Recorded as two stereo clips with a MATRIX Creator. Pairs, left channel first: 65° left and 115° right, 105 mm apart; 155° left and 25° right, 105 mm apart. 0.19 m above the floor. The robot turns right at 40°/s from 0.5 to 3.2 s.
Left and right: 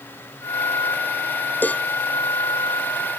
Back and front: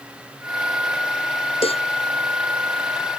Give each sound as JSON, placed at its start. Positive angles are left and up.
{"t": 1.6, "sound": "a cowbell", "azimuth_deg": 140}